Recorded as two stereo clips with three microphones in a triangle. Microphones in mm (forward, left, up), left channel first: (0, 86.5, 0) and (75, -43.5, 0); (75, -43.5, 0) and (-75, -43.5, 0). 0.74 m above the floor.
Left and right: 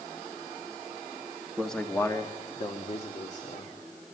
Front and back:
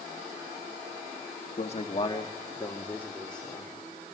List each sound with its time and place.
1.6 s a man speaking: 30° left, 1.5 m; by 3.7 s 85° left, 2.5 m